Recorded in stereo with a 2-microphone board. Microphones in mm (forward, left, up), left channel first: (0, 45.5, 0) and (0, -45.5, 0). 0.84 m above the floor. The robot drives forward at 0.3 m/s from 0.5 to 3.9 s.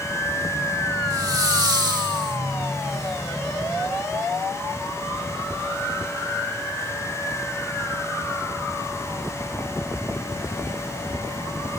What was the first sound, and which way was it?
A hiss, 45° right (ahead or behind).